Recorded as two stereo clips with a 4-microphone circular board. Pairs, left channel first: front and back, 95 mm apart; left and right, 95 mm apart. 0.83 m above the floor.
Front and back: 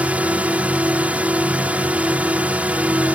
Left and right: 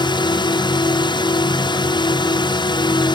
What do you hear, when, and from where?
0.0 s a drone: 105° left